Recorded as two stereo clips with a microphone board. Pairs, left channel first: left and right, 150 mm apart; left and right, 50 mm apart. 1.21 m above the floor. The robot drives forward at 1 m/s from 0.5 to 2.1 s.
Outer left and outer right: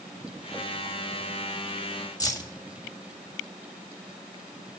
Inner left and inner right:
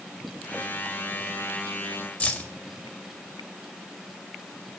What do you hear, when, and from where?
2.2 s keys jangling: 25° left (ahead or behind), 1.6 m